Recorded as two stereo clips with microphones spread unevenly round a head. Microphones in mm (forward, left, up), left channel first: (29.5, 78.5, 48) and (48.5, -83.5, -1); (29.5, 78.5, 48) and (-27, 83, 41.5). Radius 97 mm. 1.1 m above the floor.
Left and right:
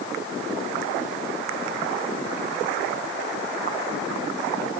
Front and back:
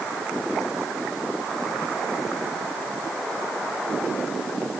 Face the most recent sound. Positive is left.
No sound to turn to.